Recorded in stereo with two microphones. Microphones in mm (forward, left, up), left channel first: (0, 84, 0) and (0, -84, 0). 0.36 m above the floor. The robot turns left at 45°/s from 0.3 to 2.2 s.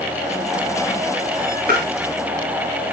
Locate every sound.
1.7 s tapping: 65° right (ahead or behind), 6.5 m; by 1.9 s 75° right (ahead or behind), 6.5 m